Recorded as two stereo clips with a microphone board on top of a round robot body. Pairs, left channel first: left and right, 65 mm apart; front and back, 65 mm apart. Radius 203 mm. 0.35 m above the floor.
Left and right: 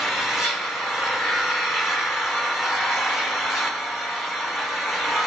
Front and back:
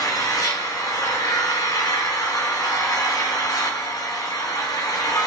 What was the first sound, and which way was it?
An engine running, 5° right.